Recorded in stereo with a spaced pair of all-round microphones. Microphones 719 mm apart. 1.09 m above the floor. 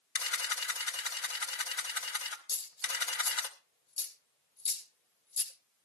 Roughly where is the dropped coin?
Left.